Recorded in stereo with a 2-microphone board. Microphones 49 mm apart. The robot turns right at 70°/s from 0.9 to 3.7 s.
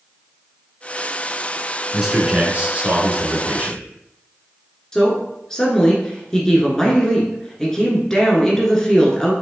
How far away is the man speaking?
About 1.3 m.